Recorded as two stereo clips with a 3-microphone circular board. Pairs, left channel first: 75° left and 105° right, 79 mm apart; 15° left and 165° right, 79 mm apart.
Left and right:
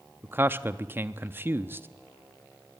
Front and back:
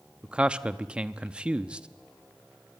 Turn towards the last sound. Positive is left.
turn(degrees=-105)